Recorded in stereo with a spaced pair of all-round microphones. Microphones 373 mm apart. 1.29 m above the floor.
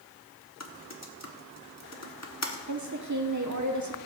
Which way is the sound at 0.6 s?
45° left (ahead or behind).